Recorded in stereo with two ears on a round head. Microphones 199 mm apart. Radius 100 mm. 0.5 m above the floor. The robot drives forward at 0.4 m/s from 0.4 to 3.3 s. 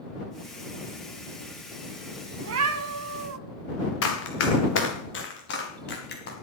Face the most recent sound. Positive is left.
turn(degrees=50)  # may be behind; listen again after turning